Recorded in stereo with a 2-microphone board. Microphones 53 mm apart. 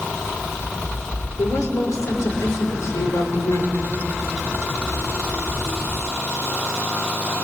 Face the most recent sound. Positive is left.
turn(degrees=85)